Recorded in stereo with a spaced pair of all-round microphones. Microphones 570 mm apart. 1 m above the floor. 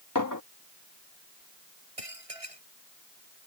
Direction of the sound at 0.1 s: 35° left (ahead or behind).